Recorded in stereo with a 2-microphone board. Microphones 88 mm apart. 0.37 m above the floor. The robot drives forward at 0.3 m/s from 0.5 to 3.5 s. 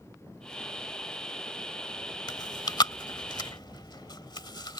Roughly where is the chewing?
Left.